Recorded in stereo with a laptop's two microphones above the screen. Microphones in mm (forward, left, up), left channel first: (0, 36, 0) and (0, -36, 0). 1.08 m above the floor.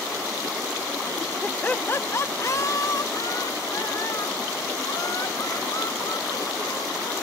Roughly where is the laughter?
Centre.